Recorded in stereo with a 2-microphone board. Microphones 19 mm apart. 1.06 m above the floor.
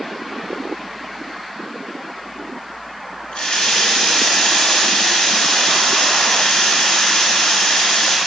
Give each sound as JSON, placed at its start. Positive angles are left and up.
{"t": 3.3, "sound": "a running tap", "side_deg": 75, "distance_m": 3.0}